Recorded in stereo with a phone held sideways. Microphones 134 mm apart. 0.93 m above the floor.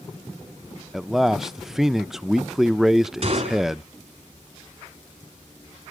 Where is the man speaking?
5° right (ahead or behind), 0.5 m.